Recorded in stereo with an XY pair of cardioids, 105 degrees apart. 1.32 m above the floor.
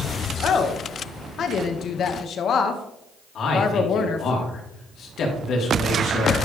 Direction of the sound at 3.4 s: 60° left.